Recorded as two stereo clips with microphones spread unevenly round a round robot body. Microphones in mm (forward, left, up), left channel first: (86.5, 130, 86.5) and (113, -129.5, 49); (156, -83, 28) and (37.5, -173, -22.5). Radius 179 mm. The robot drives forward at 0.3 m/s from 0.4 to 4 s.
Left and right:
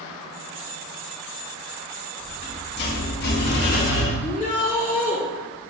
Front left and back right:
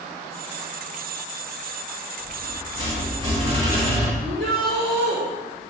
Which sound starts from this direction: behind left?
A rattle, at 2.2 s.